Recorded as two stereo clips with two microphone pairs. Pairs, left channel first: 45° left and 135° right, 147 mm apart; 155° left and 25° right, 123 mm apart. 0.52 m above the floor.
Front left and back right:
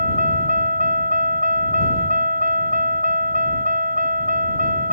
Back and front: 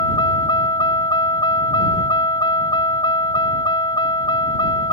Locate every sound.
0.0 s a vehicle: 155° right